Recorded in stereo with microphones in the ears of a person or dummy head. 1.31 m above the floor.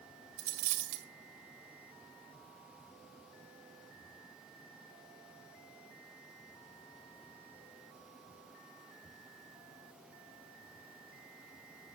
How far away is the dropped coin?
About 1.8 m.